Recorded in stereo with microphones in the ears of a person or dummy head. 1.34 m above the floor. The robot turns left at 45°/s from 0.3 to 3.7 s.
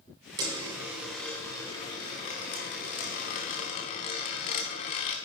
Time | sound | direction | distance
0.4 | a dropped coin | 145° right | 1.3 m